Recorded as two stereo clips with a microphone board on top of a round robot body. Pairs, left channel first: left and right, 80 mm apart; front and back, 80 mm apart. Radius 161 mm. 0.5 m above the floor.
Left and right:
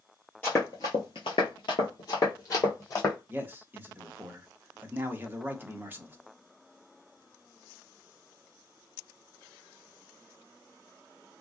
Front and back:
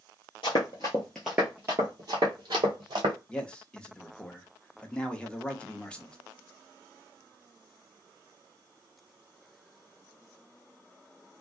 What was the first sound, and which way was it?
Running footsteps, 20° left.